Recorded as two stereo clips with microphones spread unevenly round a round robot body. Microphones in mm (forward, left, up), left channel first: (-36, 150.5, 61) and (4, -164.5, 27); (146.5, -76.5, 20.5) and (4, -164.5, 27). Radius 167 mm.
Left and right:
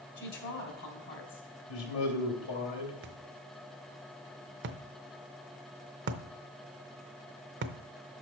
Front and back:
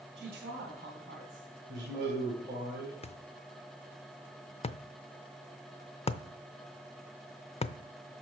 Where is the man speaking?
140° left, 3 m.